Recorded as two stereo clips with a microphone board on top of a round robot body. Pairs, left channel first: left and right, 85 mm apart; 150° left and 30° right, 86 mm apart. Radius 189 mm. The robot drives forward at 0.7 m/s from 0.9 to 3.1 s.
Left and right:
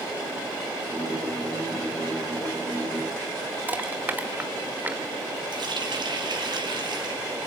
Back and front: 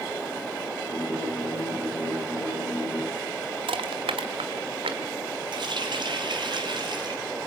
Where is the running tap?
60° right, 3.5 m.